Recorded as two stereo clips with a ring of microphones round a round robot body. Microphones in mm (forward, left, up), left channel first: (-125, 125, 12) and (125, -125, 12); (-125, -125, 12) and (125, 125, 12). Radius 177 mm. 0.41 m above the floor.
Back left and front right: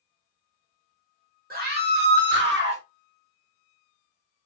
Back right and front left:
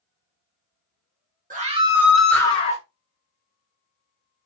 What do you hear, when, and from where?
1.5 s a scream: straight ahead, 1.2 m; by 2.8 s 80° right, 1.2 m